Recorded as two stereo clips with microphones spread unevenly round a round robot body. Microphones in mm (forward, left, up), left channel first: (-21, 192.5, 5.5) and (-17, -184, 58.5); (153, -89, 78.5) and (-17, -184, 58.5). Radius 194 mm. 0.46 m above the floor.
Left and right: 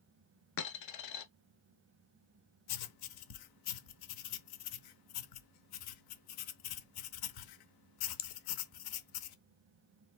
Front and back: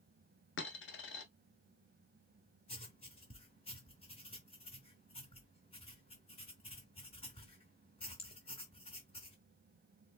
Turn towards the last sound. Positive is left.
turn(degrees=95)